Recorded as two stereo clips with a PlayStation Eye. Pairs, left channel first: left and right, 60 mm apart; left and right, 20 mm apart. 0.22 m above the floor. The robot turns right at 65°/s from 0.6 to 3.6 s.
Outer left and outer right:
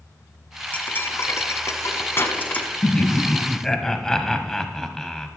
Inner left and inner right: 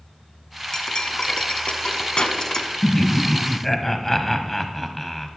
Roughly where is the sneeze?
I don't hear a sneeze.